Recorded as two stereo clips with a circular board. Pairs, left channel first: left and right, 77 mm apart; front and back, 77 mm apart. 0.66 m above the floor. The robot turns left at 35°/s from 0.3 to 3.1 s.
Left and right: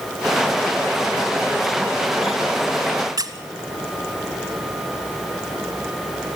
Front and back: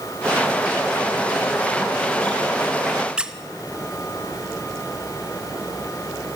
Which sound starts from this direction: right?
A squeak, at 3.2 s.